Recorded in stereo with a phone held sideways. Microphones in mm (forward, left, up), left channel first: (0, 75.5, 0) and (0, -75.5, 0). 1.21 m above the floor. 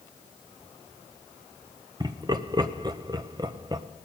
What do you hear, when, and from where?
2.0 s laughter: 25° right (ahead or behind), 0.8 m